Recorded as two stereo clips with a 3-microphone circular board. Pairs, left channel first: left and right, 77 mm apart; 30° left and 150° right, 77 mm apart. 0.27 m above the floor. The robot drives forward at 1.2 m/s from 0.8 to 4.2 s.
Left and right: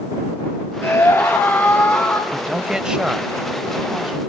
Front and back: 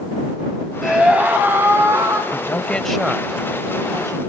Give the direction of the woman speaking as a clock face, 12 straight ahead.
12 o'clock.